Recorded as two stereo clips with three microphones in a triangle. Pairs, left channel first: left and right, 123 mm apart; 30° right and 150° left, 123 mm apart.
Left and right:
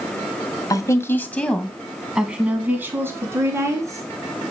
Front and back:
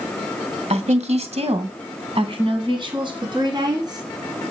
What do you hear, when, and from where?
0.7 s a woman speaking: 145° left, 1.7 m; by 4.0 s 155° right, 4 m